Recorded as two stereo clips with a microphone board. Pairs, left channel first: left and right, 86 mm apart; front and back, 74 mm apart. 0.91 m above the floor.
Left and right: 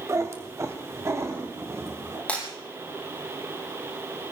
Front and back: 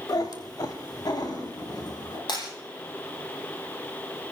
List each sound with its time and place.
0.1 s a cat meowing: 35° right, 1.8 m; by 2.2 s 30° right, 3.5 m
2.3 s breaking glass: 15° left, 6.5 m